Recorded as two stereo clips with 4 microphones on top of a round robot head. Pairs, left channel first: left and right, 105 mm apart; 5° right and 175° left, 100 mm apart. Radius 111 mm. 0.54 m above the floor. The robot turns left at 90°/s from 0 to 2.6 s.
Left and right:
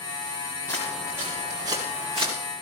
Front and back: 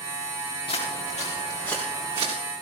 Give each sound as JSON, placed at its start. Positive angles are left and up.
{"t": 0.7, "sound": "footsteps", "azimuth_deg": 25, "distance_m": 4.5}